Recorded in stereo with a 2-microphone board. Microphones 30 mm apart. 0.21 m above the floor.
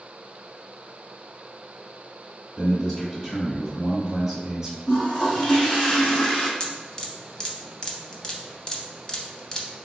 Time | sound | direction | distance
2.6 | a man speaking | 10° left (ahead or behind) | 1.4 m
4.9 | a toilet flushing | 20° left (ahead or behind) | 1.3 m
6.6 | dripping | 25° left (ahead or behind) | 0.6 m